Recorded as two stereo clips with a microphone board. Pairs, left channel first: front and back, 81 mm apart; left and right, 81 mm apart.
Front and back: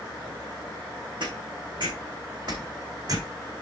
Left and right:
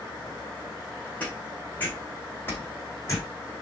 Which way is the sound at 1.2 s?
165° left.